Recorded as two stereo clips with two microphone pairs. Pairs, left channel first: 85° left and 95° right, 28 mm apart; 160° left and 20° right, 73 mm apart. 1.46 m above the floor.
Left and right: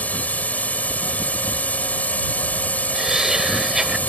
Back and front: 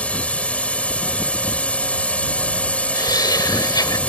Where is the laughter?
170° right.